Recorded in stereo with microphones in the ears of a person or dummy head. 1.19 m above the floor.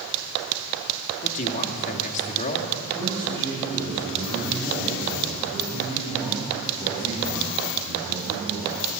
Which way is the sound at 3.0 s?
15° left (ahead or behind).